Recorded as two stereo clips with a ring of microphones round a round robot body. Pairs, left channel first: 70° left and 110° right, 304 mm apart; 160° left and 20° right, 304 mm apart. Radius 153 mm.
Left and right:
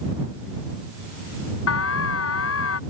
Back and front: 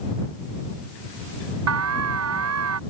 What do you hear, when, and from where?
1.7 s an alarm: 20° left